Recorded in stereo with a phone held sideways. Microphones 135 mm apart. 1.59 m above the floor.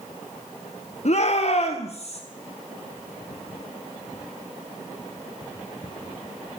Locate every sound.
1.1 s a shout: 55° left (ahead or behind), 1.1 m; by 2.2 s 50° left (ahead or behind), 2 m